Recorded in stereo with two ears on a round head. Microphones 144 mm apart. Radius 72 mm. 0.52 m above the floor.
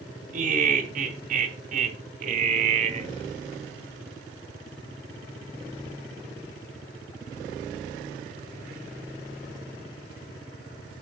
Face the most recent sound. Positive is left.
turn(degrees=-40)  # may be behind; listen again after turning